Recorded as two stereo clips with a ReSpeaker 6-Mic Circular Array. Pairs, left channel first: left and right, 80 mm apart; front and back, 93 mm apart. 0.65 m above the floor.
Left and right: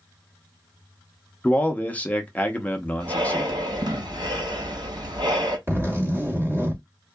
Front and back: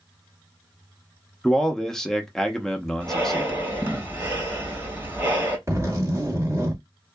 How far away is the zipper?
About 1.8 m.